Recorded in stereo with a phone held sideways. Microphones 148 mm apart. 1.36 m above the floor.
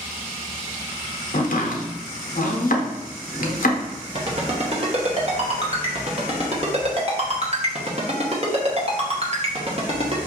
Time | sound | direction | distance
1.3 | chopping | 65° left (ahead or behind) | 0.7 m
4.2 | a ringtone | 45° right (ahead or behind) | 0.8 m